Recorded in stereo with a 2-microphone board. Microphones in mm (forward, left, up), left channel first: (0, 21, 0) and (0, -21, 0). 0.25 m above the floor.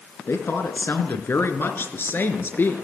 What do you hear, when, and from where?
0.3 s a woman speaking: 65° left (ahead or behind), 3.5 m; by 2.8 s 50° left (ahead or behind), 4 m